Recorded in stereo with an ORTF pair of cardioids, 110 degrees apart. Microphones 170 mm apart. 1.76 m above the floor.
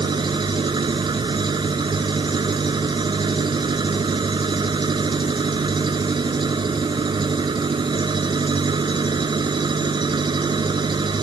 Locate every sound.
0.0 s an engine running: 25° right